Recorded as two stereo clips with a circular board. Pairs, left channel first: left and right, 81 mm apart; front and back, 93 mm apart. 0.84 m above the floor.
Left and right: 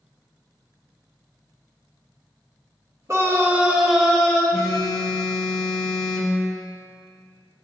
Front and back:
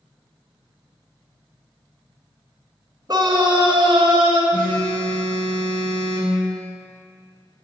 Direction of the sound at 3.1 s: 140° right.